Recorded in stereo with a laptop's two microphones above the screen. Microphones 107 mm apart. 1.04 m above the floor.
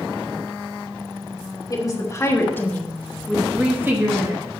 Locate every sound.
1.7 s a woman speaking: 35° left (ahead or behind), 1.4 m; by 4.4 s 40° right (ahead or behind), 1.0 m